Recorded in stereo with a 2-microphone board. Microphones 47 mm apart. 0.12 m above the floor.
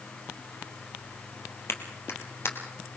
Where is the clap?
60° left (ahead or behind), 2.5 m.